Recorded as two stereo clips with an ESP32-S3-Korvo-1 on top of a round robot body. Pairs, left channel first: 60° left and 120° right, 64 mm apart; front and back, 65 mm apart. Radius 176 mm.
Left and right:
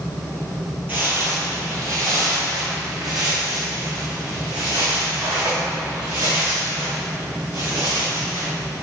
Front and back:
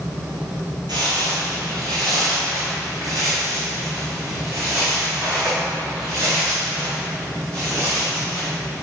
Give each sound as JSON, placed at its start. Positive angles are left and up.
{"t": 0.9, "sound": "footsteps", "azimuth_deg": 175, "distance_m": 0.9}